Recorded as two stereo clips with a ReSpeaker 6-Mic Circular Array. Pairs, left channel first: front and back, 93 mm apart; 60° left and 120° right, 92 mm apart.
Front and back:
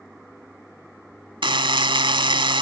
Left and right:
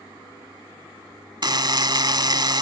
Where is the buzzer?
155° right.